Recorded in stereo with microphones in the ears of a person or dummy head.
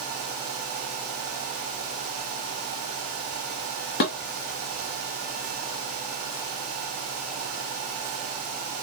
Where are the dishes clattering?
55° left (ahead or behind), 1.0 m.